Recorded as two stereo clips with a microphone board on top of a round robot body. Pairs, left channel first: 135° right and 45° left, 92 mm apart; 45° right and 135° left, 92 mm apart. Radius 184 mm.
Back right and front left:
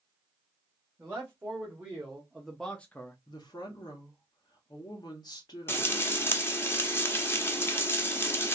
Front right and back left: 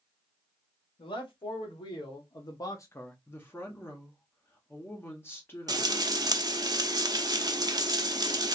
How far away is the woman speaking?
About 1.3 m.